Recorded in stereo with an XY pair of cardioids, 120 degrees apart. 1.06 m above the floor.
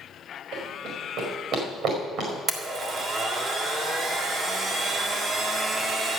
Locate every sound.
0.5 s running footsteps: 65° right, 5 m
2.5 s a blender: 45° right, 1.9 m